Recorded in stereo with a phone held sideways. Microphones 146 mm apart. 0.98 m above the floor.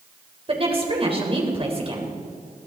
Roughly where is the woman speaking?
Right.